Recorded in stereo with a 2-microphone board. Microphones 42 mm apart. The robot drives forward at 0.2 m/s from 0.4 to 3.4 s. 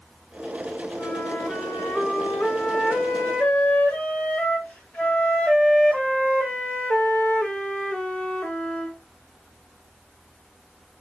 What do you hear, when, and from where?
1.0 s a flute: 35° left (ahead or behind), 2.5 m; by 9.0 s 30° left (ahead or behind), 3 m